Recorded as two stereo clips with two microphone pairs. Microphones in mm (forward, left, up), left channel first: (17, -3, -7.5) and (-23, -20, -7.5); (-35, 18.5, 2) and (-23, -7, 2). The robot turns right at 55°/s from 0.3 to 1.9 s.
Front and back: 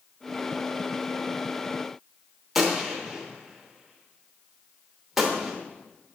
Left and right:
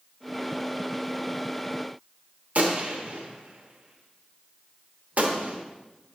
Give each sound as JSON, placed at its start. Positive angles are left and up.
{"t": 2.5, "sound": "a gunshot", "azimuth_deg": -75, "distance_m": 0.9}